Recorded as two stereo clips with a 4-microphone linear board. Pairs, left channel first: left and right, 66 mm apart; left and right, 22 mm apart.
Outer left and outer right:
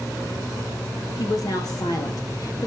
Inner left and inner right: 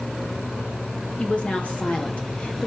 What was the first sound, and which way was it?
A woman speaking, 65° left (ahead or behind).